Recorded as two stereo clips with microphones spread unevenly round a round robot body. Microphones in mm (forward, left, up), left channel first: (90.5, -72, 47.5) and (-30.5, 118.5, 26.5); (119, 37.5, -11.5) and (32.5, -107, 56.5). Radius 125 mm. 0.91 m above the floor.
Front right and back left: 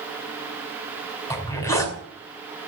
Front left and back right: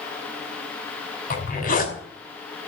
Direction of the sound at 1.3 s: 20° left.